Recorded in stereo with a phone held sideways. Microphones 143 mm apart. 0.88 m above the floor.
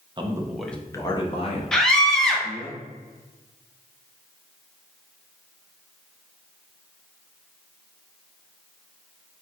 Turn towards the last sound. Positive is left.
turn(degrees=5)  # may be behind; listen again after turning